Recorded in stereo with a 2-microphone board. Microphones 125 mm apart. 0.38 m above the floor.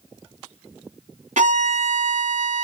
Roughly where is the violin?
Right.